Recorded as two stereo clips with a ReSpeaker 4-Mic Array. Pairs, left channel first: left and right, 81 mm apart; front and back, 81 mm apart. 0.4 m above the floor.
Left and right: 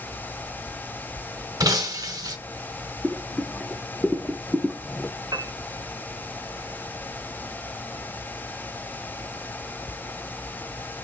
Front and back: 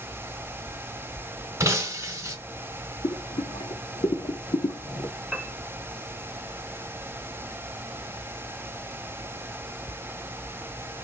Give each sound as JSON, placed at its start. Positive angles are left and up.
{"t": 1.6, "sound": "breaking glass", "azimuth_deg": -130, "distance_m": 0.9}
{"t": 3.0, "sound": "boiling", "azimuth_deg": 0, "distance_m": 0.5}
{"t": 5.3, "sound": "a piano", "azimuth_deg": -100, "distance_m": 0.7}